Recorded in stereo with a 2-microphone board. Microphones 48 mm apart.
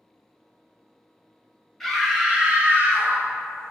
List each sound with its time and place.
1.8 s a scream: 5° left (ahead or behind), 0.8 m; by 3.7 s 70° right (ahead or behind), 0.9 m